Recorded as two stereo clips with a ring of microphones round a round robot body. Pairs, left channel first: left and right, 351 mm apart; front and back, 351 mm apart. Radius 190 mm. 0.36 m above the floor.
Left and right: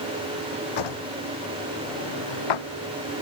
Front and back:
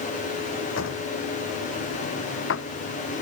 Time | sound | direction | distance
0.8 | a drawer | 60° left | ?